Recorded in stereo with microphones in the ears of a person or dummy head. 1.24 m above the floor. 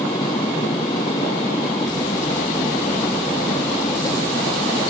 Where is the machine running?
20° left (ahead or behind).